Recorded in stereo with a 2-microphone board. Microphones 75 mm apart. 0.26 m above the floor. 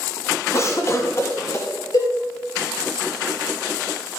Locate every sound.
0.5 s a cough: 40° left (ahead or behind), 2 m
1.9 s a cowbell: 55° left (ahead or behind), 5 m